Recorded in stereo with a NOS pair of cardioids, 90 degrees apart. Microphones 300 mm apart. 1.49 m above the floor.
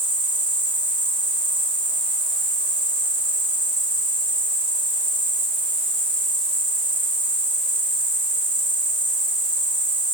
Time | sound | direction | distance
0.0 | an insect | 15° right | 4.5 m